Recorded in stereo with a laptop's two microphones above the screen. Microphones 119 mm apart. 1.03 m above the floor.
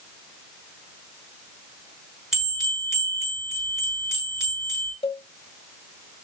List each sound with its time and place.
2.3 s a bell: 5° right (ahead or behind), 4 m
5.0 s a cowbell: 50° left (ahead or behind), 1.5 m